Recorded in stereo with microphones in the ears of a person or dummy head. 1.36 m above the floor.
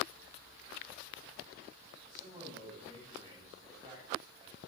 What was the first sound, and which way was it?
A man speaking, 25° right (ahead or behind).